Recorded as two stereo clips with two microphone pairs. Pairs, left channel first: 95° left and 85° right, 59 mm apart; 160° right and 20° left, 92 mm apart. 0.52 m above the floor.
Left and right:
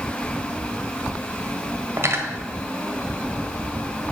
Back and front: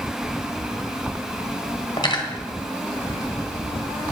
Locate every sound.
2.0 s cutlery clinking: 125° right, 1.4 m